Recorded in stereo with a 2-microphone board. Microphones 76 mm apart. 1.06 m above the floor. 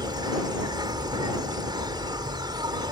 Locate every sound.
0.0 s an insect: 70° right (ahead or behind)